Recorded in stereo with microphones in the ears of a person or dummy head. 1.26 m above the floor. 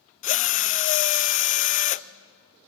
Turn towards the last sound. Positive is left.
turn(degrees=35)  # may be behind; listen again after turning